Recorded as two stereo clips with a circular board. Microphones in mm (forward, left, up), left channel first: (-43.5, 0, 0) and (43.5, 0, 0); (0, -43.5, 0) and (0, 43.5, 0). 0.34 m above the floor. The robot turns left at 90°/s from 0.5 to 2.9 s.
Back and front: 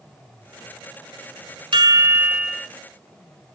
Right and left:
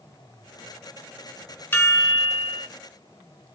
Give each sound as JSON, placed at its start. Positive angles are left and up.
{"t": 1.7, "sound": "a chime", "azimuth_deg": -20, "distance_m": 1.0}